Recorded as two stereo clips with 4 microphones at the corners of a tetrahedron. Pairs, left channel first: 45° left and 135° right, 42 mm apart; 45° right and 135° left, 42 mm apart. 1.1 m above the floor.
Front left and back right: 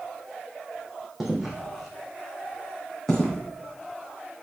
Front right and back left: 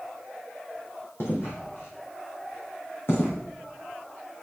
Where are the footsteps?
55° right, 2.5 m; by 4.4 s 20° right, 3 m.